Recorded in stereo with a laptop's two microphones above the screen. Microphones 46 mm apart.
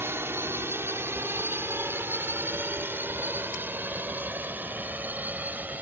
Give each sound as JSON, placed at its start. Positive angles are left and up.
{"t": 0.0, "sound": "a drone", "side_deg": -60}